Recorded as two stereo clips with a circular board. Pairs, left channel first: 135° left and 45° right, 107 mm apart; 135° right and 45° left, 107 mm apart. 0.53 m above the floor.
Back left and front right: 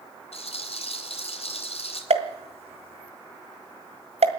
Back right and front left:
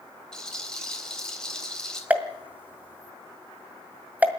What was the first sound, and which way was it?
A rattle, 140° left.